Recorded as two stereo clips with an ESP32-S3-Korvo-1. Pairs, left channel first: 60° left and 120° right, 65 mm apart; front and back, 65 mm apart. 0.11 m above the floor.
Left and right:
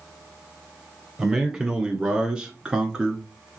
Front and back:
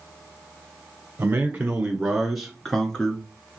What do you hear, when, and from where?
1.2 s a man speaking: 165° left, 1.2 m; by 3.2 s 55° right, 1.2 m